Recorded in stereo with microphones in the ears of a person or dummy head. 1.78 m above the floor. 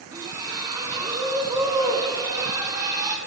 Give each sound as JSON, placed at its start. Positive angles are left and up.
{"t": 0.1, "sound": "a splash", "side_deg": -15, "distance_m": 1.2}